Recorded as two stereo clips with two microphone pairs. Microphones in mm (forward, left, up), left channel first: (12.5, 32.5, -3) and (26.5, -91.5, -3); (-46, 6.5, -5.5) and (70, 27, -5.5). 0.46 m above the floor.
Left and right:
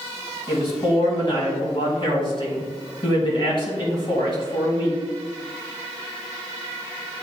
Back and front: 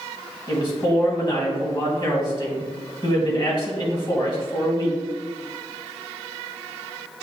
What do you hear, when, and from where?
0.5 s a man speaking: 140° left, 2.5 m